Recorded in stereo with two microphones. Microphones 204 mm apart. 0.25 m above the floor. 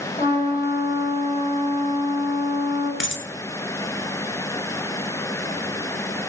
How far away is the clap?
No clap in this recording.